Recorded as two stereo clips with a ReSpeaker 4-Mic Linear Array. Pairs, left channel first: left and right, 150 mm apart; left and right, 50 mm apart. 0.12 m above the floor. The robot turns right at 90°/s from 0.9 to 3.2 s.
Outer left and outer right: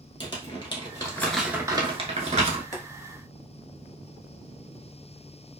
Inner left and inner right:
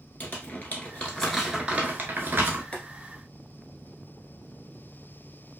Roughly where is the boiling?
Left.